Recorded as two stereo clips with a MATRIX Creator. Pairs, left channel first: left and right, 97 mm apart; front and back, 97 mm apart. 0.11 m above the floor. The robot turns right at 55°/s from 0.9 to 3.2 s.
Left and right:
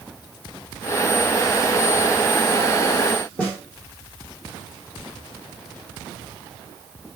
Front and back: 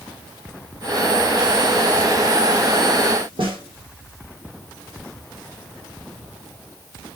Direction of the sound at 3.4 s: 160° left.